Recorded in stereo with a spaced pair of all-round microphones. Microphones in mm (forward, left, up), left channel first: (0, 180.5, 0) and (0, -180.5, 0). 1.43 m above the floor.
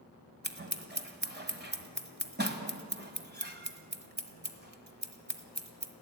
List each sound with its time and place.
0.4 s scissors: 30° right (ahead or behind), 1.5 m